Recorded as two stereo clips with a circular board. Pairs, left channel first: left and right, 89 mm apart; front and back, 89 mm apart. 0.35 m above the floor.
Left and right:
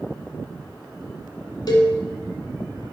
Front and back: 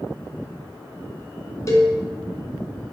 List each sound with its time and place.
1.7 s a cowbell: 50° left, 2.0 m